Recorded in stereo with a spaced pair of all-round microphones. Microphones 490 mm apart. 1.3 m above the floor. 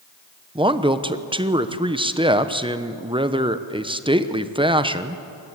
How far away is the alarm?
I don't hear an alarm.